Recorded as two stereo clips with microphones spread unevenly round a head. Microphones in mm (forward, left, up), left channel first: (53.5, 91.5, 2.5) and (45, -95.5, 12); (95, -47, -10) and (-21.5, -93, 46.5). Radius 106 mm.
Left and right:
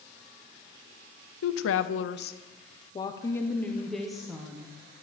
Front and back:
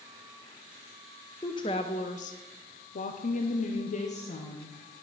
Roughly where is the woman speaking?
Left.